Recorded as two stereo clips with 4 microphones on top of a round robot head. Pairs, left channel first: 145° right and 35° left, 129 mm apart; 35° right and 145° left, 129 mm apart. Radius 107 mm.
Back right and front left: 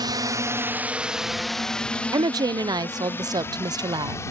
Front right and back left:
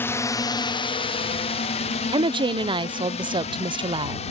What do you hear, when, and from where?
0.0 s a drone: 25° left; by 4.3 s 75° right
2.1 s a woman speaking: 95° left